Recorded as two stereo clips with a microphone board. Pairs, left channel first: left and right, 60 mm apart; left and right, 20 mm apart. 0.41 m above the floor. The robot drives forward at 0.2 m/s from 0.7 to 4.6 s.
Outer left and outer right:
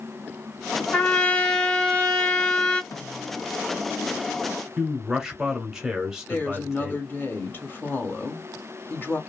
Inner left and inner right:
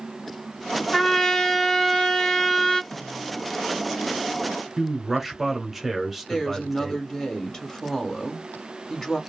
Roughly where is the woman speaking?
Left.